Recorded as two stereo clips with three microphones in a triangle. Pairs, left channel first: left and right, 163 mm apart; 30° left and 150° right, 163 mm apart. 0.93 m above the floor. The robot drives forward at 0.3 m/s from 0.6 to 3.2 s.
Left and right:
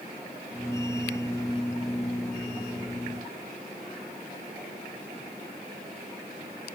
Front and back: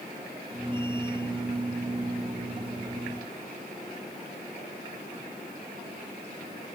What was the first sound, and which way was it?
Only background noise.